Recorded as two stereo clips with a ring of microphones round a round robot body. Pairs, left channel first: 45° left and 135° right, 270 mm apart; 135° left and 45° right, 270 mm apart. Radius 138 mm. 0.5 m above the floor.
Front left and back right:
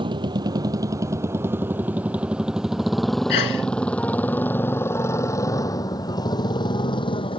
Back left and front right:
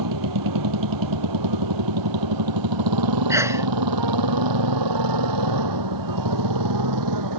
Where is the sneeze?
35° left.